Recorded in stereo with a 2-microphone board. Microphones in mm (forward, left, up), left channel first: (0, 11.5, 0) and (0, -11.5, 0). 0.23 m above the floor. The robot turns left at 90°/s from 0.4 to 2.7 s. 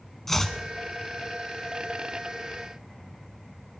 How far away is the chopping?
About 1.2 m.